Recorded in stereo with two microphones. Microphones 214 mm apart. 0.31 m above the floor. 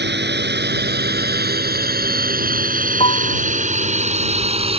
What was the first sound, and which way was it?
A drone, 55° right (ahead or behind).